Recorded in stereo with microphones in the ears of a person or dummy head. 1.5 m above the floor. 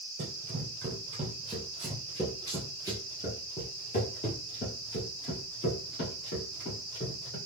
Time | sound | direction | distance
0.2 | running footsteps | 30° right (ahead or behind) | 1.7 m